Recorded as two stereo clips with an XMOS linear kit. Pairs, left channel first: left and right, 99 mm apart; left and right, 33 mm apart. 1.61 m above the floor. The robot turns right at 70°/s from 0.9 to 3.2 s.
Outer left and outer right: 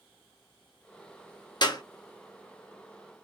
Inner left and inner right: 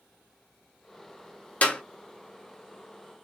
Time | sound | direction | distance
1.6 | a clap | 45° left (ahead or behind) | 0.8 m